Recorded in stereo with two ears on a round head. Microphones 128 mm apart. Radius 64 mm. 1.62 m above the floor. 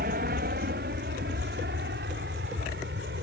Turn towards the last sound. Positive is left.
turn(degrees=-80)